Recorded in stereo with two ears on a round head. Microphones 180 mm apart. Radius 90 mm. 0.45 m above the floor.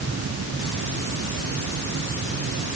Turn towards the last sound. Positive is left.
No sound to turn to.